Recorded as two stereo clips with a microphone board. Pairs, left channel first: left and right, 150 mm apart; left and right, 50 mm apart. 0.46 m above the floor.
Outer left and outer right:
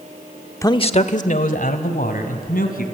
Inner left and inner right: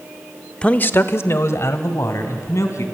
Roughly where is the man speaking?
Centre.